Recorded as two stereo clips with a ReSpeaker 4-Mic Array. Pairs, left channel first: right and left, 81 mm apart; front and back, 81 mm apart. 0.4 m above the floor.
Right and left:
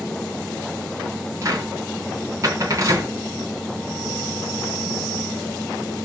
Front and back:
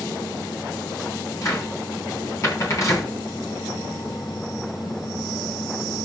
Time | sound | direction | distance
1.4 | a cupboard door | 45° left | 3.5 m